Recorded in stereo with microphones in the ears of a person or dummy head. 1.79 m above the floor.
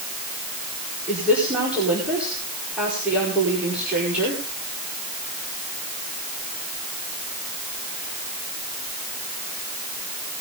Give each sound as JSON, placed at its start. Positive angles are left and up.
{"t": 1.1, "sound": "a woman speaking", "side_deg": -5, "distance_m": 5.0}